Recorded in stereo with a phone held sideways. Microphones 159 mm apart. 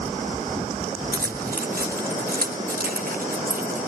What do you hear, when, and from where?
1.1 s keys jangling: 75° right (ahead or behind), 4.5 m; by 3.9 s 55° right (ahead or behind), 5 m